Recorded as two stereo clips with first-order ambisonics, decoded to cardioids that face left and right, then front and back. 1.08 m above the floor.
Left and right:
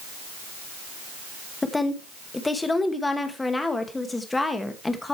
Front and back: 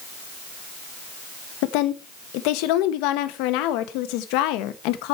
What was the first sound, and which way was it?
A woman speaking, 10° left.